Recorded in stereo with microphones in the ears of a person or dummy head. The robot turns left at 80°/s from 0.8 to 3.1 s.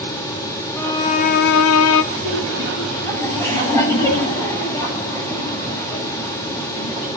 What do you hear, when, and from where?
0.8 s a violin: 165° left, 1.0 m; by 2.0 s 65° left, 1.0 m
2.1 s laughter: 125° right, 10 m; by 7.1 s 155° left, 10 m